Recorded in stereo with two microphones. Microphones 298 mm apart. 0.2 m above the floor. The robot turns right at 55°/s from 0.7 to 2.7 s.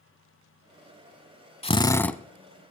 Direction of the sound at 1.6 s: 145° left.